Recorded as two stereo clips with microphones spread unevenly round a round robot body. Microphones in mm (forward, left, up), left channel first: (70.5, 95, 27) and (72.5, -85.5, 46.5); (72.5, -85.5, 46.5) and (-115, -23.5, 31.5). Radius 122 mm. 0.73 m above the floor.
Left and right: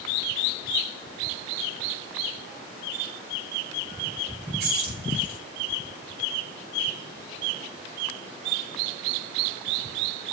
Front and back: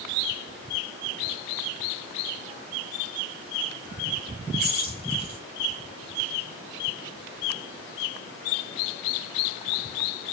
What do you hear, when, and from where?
4.6 s keys jangling: 60° right, 1.8 m